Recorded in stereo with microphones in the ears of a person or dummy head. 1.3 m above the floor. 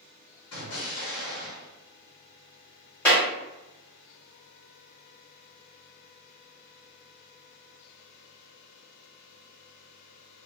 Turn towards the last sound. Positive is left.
turn(degrees=10)  # may be behind; listen again after turning